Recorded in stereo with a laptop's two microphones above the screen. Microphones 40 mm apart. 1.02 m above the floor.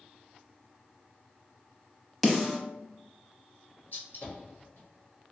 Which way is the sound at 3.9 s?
60° left (ahead or behind).